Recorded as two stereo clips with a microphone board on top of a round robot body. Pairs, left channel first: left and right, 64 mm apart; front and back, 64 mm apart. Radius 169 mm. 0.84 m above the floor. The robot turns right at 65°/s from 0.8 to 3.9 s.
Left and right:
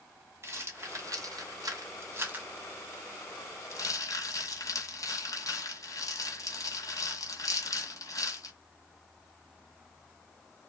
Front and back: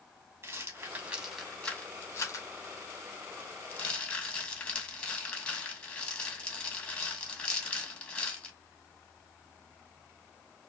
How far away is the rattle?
About 2 m.